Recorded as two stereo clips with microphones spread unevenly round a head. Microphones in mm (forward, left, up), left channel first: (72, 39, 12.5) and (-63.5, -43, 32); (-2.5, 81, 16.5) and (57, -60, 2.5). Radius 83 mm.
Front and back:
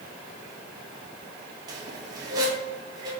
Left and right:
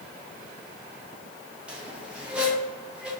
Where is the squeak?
155° right, 0.5 m.